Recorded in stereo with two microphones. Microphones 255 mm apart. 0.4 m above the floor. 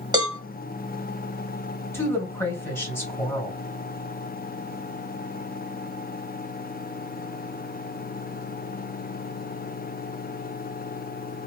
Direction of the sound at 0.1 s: 15° right (ahead or behind).